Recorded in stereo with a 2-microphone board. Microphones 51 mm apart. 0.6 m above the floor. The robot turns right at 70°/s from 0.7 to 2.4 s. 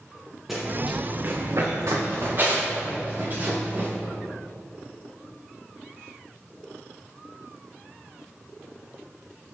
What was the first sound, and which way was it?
Running footsteps, 5° right (ahead or behind).